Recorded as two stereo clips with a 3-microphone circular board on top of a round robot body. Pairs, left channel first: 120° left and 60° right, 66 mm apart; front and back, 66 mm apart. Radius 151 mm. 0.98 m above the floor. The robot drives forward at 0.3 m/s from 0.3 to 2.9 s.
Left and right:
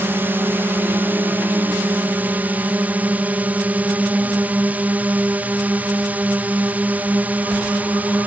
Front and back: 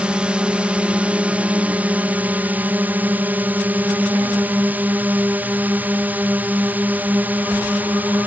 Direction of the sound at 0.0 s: 110° right.